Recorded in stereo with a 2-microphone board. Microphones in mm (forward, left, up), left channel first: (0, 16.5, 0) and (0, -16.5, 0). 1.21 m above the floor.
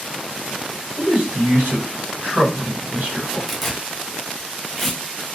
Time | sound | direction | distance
0.9 | a man speaking | 85° right | 1.5 m
3.5 | tearing paper | 5° left (ahead or behind) | 0.9 m